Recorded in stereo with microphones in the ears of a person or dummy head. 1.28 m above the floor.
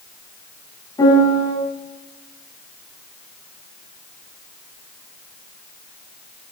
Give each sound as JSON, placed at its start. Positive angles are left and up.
{"t": 1.0, "sound": "a piano", "side_deg": 15, "distance_m": 9.5}